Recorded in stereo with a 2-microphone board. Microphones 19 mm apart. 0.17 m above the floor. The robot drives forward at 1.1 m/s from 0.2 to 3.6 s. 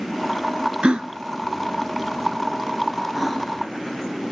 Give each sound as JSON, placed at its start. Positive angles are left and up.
{"t": 0.8, "sound": "a gasp", "side_deg": -65, "distance_m": 0.5}